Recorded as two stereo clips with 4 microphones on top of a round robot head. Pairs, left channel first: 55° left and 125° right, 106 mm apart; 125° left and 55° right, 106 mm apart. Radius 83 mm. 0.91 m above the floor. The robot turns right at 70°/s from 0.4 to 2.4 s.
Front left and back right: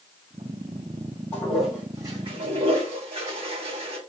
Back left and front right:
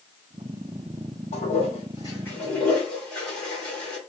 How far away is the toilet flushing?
About 2 m.